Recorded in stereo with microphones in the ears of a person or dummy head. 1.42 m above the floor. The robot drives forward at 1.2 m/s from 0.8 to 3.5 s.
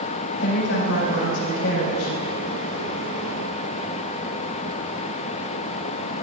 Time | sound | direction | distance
0.4 | a woman speaking | 65° left (ahead or behind) | 5 m